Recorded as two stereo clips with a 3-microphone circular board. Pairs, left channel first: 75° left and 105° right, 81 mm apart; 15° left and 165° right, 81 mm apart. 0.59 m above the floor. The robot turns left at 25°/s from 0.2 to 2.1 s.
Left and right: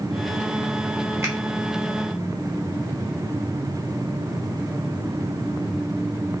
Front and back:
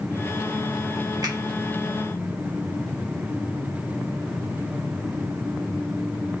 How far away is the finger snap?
About 1.4 m.